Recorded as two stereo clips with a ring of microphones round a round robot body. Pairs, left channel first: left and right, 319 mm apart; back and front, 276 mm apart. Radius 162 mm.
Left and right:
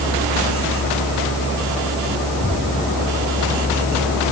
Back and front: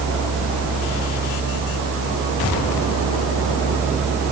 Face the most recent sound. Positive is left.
No sound to turn to.